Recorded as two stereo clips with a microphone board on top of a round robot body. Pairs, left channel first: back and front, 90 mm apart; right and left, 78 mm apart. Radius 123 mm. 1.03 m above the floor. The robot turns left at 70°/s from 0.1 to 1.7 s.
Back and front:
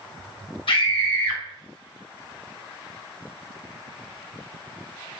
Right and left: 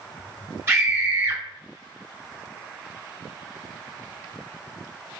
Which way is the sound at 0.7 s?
155° left.